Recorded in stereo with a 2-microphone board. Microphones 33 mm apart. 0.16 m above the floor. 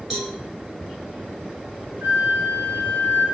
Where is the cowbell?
15° right (ahead or behind), 1.7 m.